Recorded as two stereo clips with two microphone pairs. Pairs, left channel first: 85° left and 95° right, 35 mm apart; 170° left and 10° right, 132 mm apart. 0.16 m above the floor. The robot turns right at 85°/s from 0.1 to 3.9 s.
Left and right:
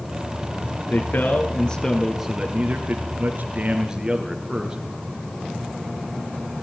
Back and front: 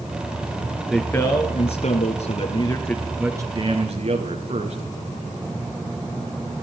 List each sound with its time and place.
0.9 s a man speaking: 80° left, 3 m; by 4.8 s 25° right, 3 m